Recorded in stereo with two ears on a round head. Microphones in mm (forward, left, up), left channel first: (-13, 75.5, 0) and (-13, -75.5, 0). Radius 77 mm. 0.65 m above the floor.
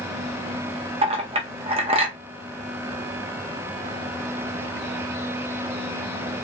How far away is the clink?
About 0.7 m.